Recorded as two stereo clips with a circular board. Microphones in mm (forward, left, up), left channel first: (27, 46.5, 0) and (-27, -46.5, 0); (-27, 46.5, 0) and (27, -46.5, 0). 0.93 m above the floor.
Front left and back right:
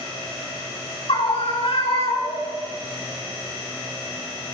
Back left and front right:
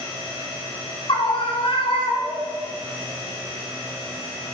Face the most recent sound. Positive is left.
turn(degrees=80)